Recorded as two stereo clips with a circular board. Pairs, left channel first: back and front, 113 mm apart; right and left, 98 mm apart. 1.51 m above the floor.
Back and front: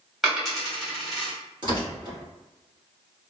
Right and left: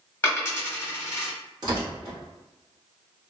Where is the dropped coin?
90° right, 1.2 m.